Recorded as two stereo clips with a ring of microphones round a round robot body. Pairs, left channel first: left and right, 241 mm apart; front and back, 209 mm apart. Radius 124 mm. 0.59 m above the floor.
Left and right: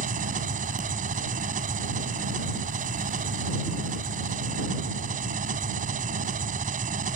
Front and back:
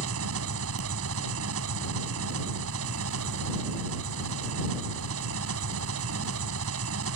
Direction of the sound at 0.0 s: 150° right.